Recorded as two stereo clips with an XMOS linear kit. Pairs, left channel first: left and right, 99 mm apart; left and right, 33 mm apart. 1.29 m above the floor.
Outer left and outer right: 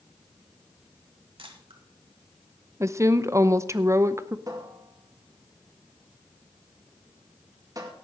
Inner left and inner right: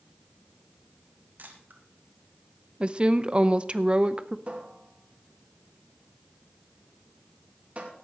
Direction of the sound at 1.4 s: 65° right (ahead or behind).